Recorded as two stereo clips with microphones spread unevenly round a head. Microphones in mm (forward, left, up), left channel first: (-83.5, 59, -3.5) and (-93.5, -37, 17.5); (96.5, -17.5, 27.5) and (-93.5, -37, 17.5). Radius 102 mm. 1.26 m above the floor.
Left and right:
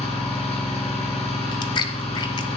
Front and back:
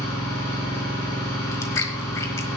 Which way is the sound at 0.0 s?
85° left.